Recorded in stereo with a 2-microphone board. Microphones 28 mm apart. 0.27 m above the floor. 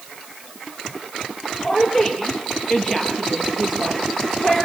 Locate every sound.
1.6 s a woman speaking: 5° right (ahead or behind), 5.5 m